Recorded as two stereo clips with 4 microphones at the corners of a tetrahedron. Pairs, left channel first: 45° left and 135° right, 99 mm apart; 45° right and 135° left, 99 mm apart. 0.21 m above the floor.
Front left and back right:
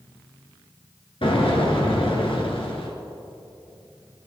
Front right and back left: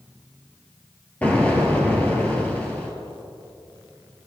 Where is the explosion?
30° left, 2.0 m.